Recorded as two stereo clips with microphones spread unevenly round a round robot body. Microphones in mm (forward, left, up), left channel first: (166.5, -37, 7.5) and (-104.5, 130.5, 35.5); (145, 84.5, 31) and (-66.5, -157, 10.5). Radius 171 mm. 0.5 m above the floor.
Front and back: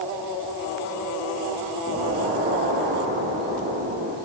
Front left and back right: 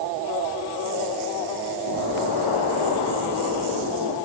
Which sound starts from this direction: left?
An explosion, at 1.9 s.